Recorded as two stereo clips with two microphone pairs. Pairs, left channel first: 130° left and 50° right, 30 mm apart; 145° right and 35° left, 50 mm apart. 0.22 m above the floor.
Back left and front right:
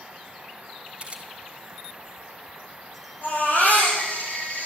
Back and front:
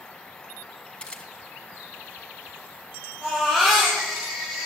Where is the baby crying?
115° left, 7.5 m.